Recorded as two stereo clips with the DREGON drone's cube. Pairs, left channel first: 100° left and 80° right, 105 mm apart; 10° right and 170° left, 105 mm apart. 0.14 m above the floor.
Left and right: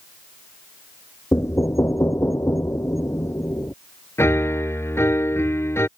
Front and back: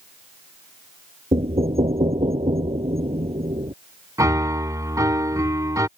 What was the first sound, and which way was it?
Knocking, 160° left.